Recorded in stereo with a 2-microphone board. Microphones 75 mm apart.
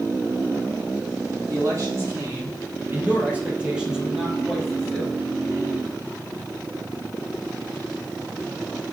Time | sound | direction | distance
1.5 | a man speaking | 40° right (ahead or behind) | 4 m